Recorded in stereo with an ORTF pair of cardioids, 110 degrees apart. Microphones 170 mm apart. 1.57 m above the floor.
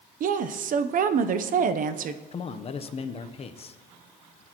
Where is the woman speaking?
50° right, 0.8 m.